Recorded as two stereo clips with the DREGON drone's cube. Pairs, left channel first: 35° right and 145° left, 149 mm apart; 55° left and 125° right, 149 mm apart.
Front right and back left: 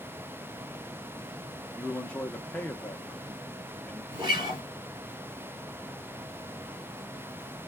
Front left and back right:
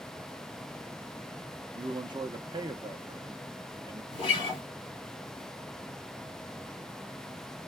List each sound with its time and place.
1.7 s a man speaking: 110° right, 0.6 m
4.1 s a guitar: 100° left, 2 m